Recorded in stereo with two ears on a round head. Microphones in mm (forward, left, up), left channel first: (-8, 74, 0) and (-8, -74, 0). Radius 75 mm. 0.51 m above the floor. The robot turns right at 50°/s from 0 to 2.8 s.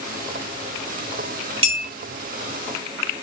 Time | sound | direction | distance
1.6 | a clink | 35° right (ahead or behind) | 1.0 m